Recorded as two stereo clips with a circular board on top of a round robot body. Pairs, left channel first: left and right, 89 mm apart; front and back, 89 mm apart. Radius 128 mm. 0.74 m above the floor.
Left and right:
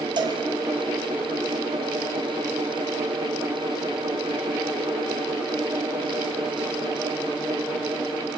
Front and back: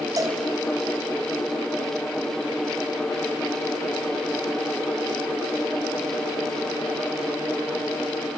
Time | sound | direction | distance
0.2 | a cowbell | 130° right | 0.9 m